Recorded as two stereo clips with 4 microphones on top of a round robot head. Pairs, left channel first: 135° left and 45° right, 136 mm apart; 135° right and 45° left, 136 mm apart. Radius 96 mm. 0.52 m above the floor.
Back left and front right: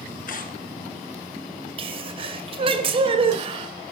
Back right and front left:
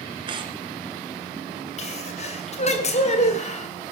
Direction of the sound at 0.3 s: 105° left.